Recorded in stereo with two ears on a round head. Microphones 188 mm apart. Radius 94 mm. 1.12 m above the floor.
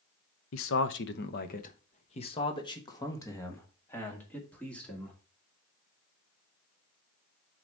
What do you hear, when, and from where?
0.5 s a man speaking: 70° left (ahead or behind), 0.8 m; by 5.2 s 5° left (ahead or behind), 2.5 m